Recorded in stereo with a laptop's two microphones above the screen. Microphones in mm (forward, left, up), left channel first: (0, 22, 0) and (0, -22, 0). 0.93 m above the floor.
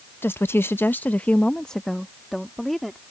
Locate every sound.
0.2 s a woman speaking: 60° left (ahead or behind); by 3.0 s 5° left (ahead or behind)